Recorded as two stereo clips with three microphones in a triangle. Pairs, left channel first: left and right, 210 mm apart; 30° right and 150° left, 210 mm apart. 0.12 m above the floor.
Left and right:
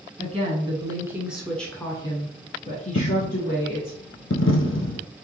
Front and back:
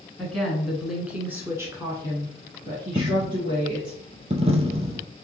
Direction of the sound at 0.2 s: 115° right.